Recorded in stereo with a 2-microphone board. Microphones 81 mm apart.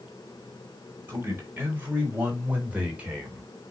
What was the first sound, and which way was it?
A man speaking, 25° right (ahead or behind).